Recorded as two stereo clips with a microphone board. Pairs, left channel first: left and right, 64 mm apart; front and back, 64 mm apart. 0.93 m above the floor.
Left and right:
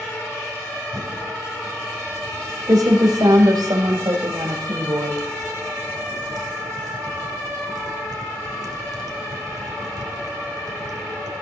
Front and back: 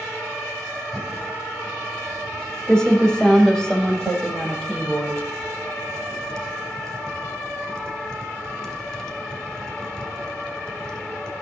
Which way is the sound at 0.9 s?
80° right.